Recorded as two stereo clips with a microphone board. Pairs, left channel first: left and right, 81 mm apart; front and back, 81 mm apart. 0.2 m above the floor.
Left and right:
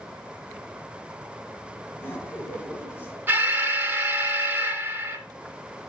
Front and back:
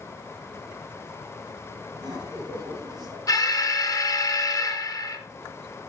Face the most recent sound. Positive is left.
turn(degrees=-30)